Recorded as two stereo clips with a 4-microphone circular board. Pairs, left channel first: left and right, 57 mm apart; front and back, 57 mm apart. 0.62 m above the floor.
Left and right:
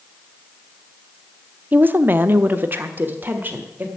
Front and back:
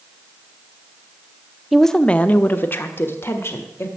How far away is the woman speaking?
About 0.6 m.